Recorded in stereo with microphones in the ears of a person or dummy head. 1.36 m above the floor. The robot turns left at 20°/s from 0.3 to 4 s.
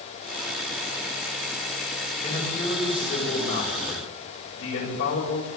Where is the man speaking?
145° left, 8 m; by 5.5 s 110° left, 8 m.